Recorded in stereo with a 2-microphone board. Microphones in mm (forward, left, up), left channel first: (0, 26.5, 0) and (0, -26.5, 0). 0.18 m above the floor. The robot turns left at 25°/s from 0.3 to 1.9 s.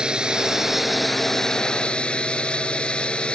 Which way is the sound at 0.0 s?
160° right.